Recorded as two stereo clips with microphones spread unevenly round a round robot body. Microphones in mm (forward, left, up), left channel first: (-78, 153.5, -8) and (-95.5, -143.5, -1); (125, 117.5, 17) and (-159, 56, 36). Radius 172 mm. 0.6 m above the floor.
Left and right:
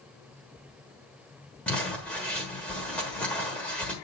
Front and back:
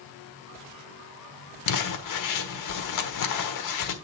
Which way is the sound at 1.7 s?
Straight ahead.